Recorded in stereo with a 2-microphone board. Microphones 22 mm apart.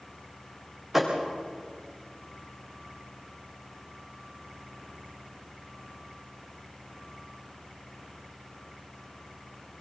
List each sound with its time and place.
0.9 s a thud: 10° right (ahead or behind), 5.5 m